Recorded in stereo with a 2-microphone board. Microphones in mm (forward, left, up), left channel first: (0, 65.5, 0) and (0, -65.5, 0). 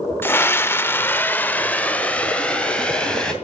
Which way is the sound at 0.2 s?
15° left (ahead or behind).